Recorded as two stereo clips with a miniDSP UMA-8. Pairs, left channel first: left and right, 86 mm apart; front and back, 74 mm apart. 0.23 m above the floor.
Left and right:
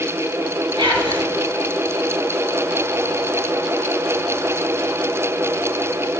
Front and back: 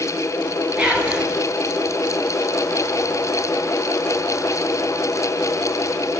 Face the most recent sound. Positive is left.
turn(degrees=-105)